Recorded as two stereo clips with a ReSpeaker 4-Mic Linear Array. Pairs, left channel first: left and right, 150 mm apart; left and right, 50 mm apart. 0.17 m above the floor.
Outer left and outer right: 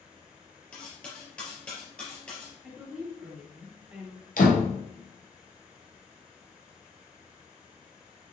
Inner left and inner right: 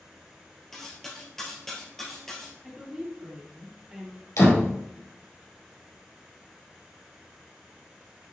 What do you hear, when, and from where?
0.7 s cutlery clinking: 10° left (ahead or behind), 2.5 m
2.6 s a woman speaking: 10° right (ahead or behind), 3 m
4.4 s a door slam: 70° left (ahead or behind), 2.5 m